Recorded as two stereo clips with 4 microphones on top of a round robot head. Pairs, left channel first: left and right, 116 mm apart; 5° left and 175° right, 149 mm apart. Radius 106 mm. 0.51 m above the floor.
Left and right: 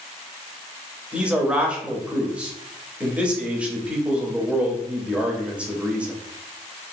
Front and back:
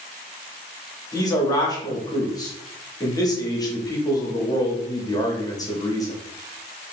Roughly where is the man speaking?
Ahead.